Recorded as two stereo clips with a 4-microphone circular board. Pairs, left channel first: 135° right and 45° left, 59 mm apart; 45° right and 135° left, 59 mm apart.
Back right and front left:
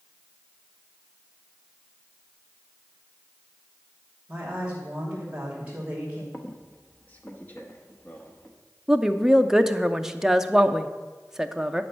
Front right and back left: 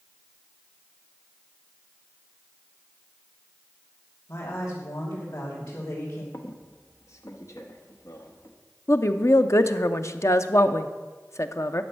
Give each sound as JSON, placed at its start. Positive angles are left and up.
{"t": 4.3, "sound": "a woman speaking", "azimuth_deg": -25, "distance_m": 2.5}
{"t": 6.3, "sound": "a squeak", "azimuth_deg": -75, "distance_m": 1.1}
{"t": 8.9, "sound": "a woman speaking", "azimuth_deg": -35, "distance_m": 0.6}